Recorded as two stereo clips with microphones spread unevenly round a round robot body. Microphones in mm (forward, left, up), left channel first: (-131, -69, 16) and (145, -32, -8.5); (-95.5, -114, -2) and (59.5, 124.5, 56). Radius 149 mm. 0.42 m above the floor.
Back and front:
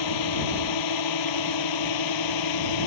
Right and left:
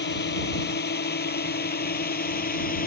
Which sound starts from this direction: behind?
A drone, at 0.0 s.